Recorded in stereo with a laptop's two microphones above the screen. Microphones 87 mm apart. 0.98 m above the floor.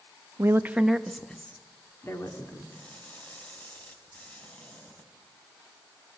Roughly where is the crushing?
Left.